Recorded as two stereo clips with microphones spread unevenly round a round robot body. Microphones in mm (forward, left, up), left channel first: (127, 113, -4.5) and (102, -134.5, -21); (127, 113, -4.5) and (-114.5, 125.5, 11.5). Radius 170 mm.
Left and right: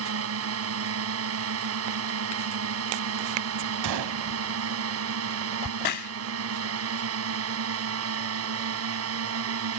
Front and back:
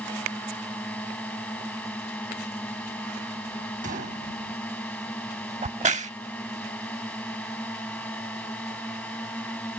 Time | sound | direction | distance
0.0 | a drone | 90° right | ?
3.8 | a gunshot | 115° right | ?
5.6 | a crack | 110° left | ?